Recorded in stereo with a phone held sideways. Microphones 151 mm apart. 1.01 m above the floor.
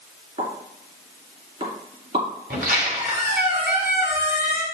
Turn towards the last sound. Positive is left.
turn(degrees=-75)  # may be behind; listen again after turning